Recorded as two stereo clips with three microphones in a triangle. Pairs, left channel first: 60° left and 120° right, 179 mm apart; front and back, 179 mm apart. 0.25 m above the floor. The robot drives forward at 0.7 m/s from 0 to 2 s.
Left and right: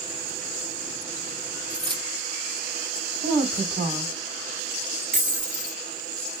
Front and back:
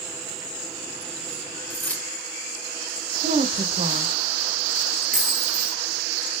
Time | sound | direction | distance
1.7 | keys jangling | 60° right | 0.8 m
3.2 | a woman speaking | 170° right | 1.8 m
5.1 | a dropped coin | 155° right | 1.4 m